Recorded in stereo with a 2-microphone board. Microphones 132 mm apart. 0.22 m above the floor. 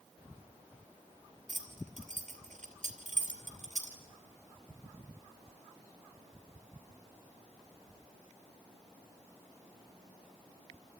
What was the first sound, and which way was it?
Keys jangling, 75° right (ahead or behind).